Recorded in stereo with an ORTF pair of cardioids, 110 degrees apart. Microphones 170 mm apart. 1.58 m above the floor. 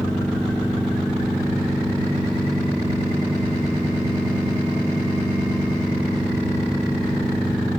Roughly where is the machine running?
Ahead.